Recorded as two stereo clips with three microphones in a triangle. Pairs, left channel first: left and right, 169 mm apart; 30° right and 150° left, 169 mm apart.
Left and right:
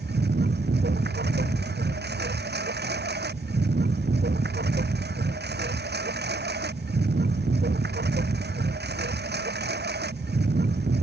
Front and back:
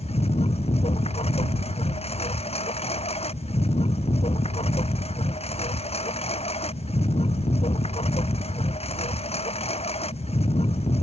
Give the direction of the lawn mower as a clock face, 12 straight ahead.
3 o'clock.